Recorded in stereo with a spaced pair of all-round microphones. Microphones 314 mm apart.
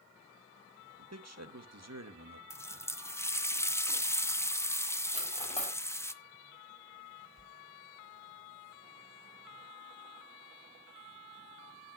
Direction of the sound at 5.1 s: 20° left (ahead or behind).